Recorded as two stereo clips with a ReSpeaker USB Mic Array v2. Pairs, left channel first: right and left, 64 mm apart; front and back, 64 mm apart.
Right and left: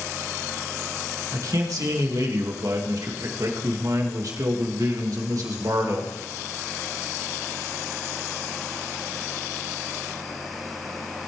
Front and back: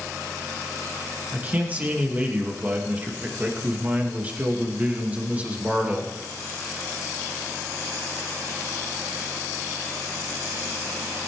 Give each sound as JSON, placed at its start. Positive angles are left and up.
{"t": 1.3, "sound": "a man speaking", "azimuth_deg": 115, "distance_m": 2.0}